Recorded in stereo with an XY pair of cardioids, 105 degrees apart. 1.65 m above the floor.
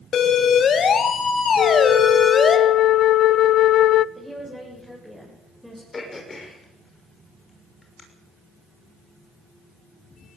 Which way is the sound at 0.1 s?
65° left.